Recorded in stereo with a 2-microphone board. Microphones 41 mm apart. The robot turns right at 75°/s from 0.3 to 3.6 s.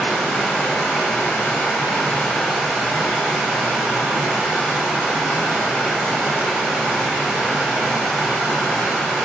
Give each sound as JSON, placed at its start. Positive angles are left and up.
{"t": 0.0, "sound": "running water", "azimuth_deg": 5, "distance_m": 1.0}